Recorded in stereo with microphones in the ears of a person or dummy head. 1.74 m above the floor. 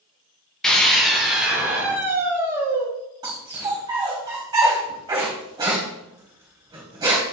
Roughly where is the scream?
Centre.